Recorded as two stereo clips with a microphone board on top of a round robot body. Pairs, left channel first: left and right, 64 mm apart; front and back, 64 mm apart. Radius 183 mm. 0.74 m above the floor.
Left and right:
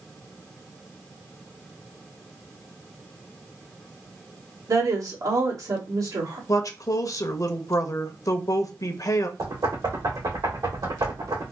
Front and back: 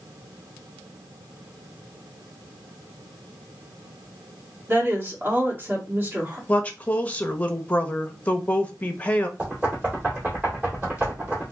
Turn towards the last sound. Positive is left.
turn(degrees=-110)